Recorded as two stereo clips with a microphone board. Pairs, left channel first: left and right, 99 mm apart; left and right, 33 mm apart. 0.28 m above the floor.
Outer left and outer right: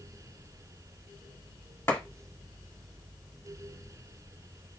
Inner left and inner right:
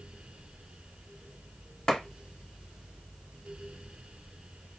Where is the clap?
25° left (ahead or behind), 1.4 m.